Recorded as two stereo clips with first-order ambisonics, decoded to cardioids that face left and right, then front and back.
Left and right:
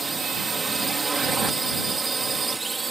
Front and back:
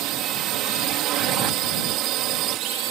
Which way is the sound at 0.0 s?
160° right.